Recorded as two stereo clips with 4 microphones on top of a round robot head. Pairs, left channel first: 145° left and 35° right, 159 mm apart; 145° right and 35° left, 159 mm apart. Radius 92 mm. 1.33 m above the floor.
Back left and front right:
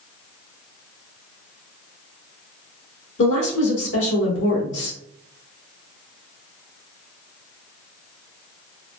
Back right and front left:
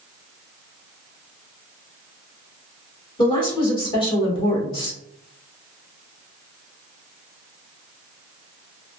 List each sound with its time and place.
3.2 s a woman speaking: 150° left, 1.6 m